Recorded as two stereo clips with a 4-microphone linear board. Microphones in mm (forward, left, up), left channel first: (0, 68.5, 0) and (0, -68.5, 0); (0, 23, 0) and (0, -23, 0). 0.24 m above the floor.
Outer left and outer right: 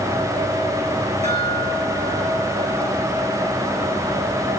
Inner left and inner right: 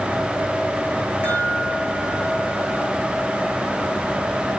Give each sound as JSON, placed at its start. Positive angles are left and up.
{"t": 1.2, "sound": "a chime", "side_deg": -50, "distance_m": 6.0}